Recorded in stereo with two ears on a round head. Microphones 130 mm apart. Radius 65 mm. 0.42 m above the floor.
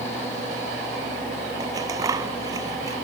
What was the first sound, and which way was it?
Scissors, 25° right (ahead or behind).